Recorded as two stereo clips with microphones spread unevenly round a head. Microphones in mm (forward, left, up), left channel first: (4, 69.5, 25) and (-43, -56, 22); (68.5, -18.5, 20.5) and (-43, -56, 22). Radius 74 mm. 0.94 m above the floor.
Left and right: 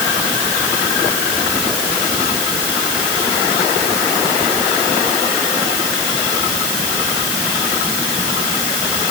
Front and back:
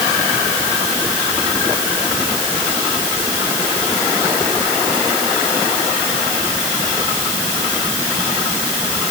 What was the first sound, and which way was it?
Only background noise.